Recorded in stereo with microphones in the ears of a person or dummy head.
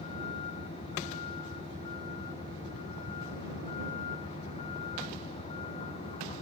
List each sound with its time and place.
0.0 s a vehicle: 35° left (ahead or behind)